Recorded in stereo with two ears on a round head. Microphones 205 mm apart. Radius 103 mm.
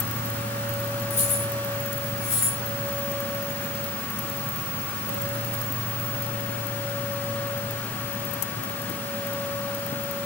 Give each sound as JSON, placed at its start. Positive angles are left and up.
{"t": 1.1, "sound": "keys jangling", "side_deg": 30, "distance_m": 5.5}